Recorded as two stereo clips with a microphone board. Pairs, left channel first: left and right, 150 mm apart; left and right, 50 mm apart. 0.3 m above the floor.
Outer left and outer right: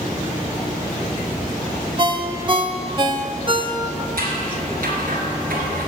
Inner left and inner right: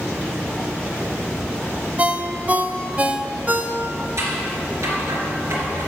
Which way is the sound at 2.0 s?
35° right (ahead or behind).